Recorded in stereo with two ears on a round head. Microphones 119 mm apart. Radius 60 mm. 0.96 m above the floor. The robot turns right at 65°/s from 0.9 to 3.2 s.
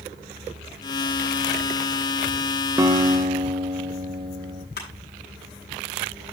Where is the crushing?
85° left, 7 m.